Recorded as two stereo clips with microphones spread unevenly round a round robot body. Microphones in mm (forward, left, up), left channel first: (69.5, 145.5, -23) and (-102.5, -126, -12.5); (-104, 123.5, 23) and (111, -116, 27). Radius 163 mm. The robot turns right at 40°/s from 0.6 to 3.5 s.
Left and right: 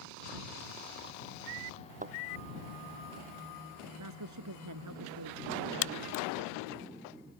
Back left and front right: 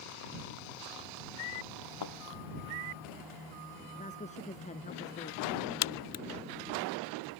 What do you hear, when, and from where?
2.0 s a thud: 170° left; by 2.1 s 175° left
4.0 s a woman speaking: 160° right
5.8 s a crack: 100° left